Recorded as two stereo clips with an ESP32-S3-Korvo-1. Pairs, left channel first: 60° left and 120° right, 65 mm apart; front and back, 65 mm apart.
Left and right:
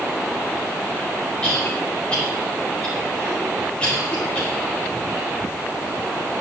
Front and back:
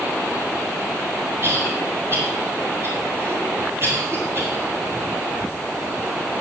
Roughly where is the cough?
Behind left.